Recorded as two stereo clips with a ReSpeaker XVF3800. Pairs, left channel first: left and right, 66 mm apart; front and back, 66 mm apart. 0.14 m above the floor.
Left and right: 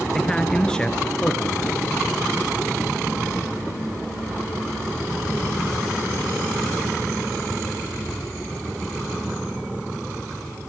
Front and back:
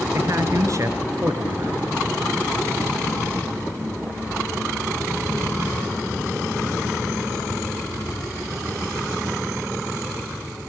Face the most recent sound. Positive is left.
turn(degrees=165)